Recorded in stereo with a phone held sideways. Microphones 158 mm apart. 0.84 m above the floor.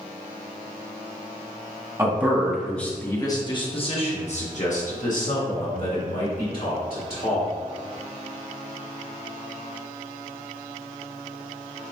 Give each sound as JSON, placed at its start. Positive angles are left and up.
{"t": 2.0, "sound": "a man speaking", "side_deg": -20, "distance_m": 0.9}